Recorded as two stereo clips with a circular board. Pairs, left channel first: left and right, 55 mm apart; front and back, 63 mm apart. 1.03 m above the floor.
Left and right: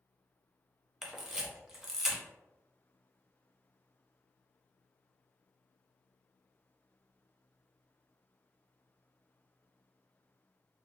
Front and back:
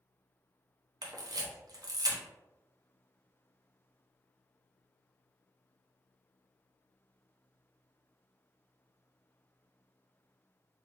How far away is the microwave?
No microwave in this recording.